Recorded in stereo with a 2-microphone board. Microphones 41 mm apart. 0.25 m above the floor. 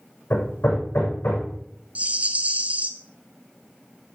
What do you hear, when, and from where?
0.3 s hammering: 75° left (ahead or behind), 6.5 m
1.9 s a rattle: 35° right (ahead or behind), 0.9 m